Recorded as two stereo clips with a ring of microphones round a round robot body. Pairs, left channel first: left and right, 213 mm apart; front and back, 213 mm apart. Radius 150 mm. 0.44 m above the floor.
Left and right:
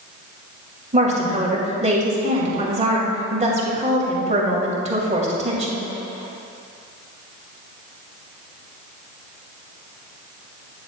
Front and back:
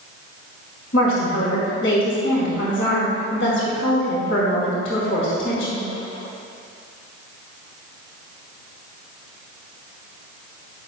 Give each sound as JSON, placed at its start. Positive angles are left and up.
{"t": 0.9, "sound": "a woman speaking", "azimuth_deg": -35, "distance_m": 2.0}